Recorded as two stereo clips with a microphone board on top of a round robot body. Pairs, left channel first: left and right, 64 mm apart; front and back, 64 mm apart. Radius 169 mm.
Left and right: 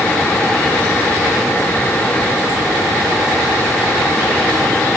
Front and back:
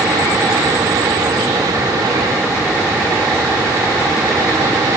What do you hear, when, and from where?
Only background noise.